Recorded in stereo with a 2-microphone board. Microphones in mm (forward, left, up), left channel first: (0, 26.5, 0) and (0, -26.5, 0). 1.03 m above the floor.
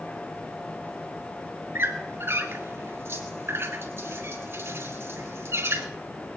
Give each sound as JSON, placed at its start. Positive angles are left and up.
{"t": 1.8, "sound": "a squeak", "side_deg": -45, "distance_m": 1.9}